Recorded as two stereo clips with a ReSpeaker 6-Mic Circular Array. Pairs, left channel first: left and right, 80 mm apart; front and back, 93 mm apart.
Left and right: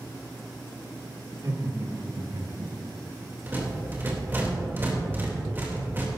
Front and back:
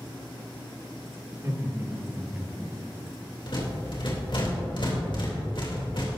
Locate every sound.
1.3 s laughter: 130° right, 2.5 m; by 2.8 s 90° right, 1.3 m
3.5 s a rattle: 25° right, 3 m